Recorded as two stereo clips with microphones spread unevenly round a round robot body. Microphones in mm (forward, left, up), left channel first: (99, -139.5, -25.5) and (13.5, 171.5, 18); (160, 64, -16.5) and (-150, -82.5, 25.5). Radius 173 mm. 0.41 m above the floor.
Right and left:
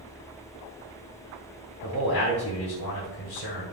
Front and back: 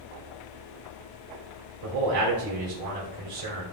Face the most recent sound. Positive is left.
turn(degrees=-125)